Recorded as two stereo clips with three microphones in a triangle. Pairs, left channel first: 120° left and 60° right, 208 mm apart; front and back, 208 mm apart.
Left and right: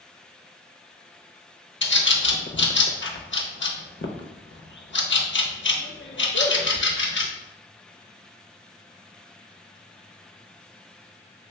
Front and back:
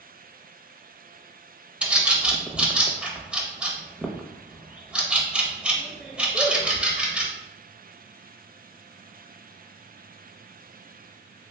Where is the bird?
95° left, 0.5 m.